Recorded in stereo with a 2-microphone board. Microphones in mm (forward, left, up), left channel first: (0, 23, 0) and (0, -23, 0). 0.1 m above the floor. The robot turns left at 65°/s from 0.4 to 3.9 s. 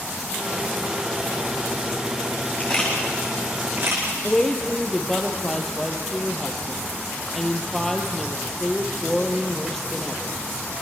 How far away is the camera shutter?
About 8.5 m.